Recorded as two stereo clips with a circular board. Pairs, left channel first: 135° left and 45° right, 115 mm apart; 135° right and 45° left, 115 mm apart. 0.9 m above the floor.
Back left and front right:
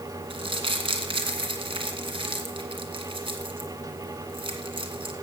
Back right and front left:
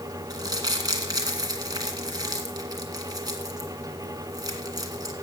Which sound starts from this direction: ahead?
Crumpling, at 0.3 s.